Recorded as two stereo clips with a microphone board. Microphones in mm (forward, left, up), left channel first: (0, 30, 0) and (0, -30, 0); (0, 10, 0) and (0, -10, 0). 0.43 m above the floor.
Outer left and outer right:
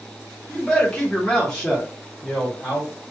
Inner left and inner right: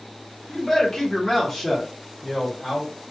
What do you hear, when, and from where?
0.5 s a man speaking: 10° left (ahead or behind), 1.3 m; by 2.9 s 5° left (ahead or behind), 1.6 m